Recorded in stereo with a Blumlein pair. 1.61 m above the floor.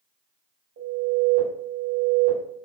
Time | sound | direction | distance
0.8 | an alarm | 65° right | 1.3 m